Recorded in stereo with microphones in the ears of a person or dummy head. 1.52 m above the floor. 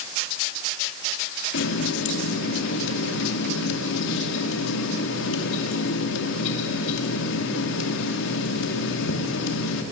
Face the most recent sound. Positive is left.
turn(degrees=80)